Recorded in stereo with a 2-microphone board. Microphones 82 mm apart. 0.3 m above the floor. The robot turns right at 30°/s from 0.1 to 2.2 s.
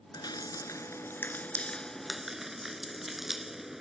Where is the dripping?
55° left (ahead or behind); by 3.8 s 5° right (ahead or behind).